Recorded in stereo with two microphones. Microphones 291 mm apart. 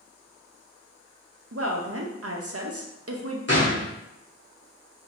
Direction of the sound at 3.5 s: 45° left (ahead or behind).